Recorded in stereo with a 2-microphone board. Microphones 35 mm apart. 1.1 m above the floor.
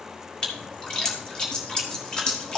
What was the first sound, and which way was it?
A splash, 15° left (ahead or behind).